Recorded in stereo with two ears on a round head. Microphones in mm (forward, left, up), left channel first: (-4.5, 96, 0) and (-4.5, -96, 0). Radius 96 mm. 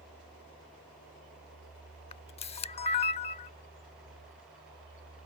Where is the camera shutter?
30° left (ahead or behind).